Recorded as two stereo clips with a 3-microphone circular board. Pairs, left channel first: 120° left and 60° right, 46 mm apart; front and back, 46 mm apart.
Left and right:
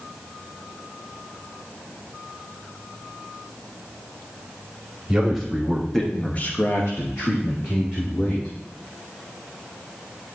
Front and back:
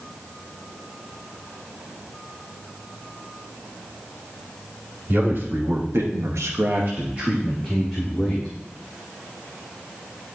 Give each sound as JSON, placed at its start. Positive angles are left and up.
{"t": 5.1, "sound": "a man speaking", "azimuth_deg": -135, "distance_m": 1.9}